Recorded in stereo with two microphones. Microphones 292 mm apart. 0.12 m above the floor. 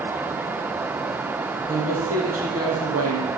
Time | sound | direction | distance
1.7 | a woman speaking | 55° right (ahead or behind) | 4 m